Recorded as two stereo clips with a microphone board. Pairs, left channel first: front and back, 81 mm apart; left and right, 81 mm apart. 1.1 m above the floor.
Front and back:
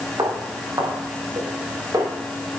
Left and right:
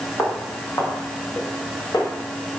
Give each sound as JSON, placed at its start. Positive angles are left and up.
{"t": 0.2, "sound": "footsteps", "azimuth_deg": 150, "distance_m": 5.0}